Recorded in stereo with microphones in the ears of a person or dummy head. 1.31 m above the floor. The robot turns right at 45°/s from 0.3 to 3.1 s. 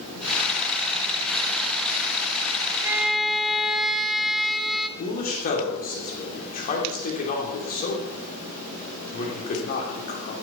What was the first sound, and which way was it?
A violin, 10° right (ahead or behind).